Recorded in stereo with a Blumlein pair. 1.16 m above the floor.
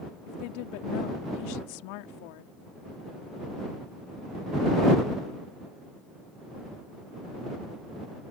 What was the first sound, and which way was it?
A woman speaking, 45° left.